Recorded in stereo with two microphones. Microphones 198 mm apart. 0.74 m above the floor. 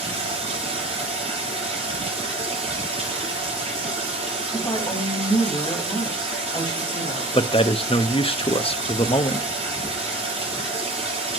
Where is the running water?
30° right (ahead or behind), 6 m.